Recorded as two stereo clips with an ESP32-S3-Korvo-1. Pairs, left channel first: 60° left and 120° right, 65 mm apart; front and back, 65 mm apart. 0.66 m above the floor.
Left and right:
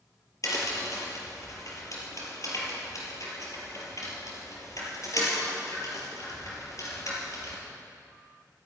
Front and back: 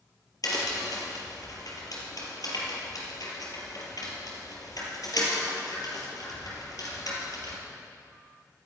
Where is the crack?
25° left, 4 m.